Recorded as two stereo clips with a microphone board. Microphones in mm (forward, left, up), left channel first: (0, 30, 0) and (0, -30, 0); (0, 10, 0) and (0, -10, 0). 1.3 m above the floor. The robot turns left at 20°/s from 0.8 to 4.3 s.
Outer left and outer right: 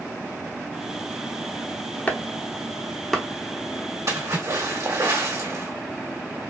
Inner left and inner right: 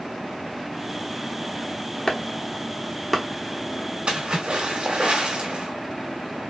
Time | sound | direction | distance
2.1 | chopping | 25° left (ahead or behind) | 0.9 m
4.1 | a splash | 60° right (ahead or behind) | 2 m